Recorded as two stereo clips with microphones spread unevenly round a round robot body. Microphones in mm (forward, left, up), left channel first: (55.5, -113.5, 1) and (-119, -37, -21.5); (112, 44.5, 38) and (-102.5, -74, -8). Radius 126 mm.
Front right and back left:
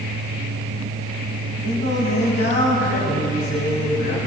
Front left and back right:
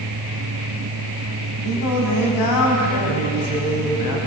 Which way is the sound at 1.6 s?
35° left.